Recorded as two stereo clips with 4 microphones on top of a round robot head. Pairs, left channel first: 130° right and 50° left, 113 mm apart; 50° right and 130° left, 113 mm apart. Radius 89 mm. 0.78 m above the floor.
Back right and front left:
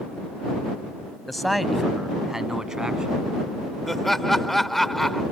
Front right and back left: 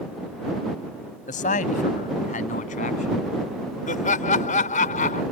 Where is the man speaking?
40° right; by 3.2 s 35° right.